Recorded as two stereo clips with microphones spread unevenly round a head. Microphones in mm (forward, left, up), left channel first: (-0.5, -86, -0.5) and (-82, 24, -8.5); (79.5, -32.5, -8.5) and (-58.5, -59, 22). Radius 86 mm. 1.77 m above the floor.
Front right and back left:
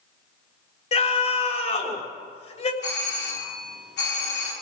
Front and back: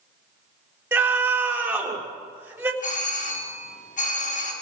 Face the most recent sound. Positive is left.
turn(degrees=-20)